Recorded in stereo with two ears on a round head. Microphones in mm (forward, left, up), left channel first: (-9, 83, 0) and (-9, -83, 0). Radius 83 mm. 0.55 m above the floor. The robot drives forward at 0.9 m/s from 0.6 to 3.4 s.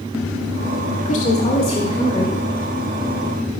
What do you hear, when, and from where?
1.1 s a woman speaking: 45° left (ahead or behind), 1.4 m; by 2.4 s 25° left (ahead or behind), 2 m